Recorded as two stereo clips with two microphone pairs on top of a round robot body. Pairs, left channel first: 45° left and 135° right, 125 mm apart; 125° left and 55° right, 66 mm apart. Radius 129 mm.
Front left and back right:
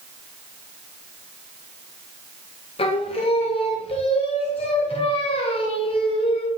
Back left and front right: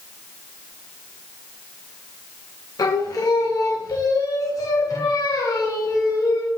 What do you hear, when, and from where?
2.8 s singing: 90° left, 0.6 m